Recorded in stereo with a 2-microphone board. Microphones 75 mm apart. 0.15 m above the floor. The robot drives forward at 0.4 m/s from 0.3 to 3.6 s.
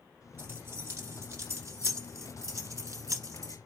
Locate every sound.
0.4 s keys jangling: 35° right (ahead or behind), 1.8 m; by 3.6 s 45° right (ahead or behind), 1.4 m